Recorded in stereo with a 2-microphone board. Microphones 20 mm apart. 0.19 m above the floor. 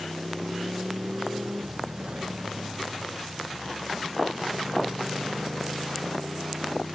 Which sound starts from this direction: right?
A motorcycle, at 0.0 s.